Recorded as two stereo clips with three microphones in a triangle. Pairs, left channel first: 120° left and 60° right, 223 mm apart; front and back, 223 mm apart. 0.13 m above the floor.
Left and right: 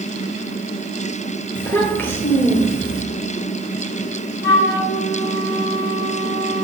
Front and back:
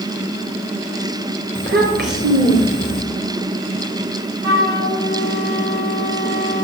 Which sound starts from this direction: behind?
A child speaking, at 1.6 s.